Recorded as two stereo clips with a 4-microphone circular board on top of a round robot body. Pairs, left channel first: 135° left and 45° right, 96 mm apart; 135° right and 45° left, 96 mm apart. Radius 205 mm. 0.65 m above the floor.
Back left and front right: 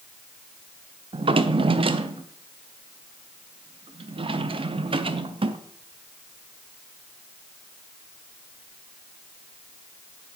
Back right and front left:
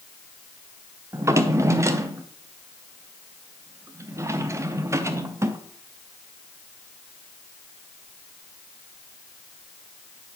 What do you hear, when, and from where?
1.1 s a drawer: 15° right, 0.6 m